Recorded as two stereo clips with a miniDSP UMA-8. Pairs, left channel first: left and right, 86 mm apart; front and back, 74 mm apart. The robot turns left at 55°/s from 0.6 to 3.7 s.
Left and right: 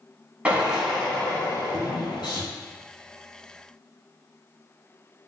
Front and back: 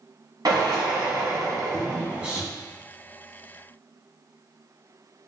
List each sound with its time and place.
0.5 s a drill: 165° right, 1.3 m; by 2.4 s 95° left, 1.3 m